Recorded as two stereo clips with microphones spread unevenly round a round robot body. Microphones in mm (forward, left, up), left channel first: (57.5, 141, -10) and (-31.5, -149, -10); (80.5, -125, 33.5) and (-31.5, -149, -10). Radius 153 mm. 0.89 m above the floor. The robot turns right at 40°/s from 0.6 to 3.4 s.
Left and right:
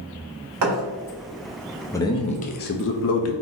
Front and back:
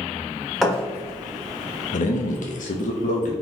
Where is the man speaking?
5° right, 0.7 m; by 3.3 s 50° left, 0.7 m.